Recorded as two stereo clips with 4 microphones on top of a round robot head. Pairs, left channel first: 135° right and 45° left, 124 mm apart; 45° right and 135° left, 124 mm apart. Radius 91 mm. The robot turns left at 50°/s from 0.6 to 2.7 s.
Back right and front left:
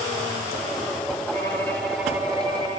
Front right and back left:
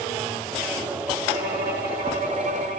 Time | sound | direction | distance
1.3 | a violin | 165° left | 2.5 m